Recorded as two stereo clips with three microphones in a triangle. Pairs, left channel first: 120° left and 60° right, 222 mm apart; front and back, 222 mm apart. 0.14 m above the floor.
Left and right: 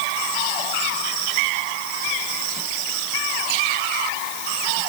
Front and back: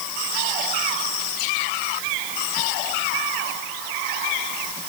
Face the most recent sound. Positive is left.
No sound to turn to.